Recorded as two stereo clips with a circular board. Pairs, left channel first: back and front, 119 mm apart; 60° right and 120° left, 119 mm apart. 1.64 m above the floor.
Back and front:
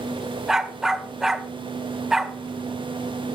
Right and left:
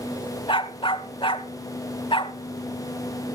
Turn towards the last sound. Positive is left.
turn(degrees=-85)